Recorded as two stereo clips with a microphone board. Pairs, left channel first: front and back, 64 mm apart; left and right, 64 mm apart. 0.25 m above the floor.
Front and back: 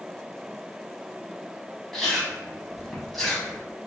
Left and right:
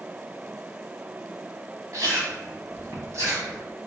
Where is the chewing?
85° right, 1.2 m.